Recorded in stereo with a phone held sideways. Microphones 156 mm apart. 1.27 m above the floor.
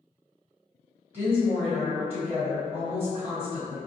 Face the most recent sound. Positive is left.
turn(degrees=-15)  # may be behind; listen again after turning